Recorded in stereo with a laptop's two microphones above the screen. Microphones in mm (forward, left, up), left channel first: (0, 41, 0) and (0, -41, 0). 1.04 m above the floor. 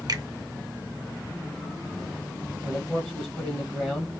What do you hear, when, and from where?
0.1 s a finger snap: 50° right (ahead or behind), 0.8 m
2.6 s a man speaking: 15° left (ahead or behind), 1.1 m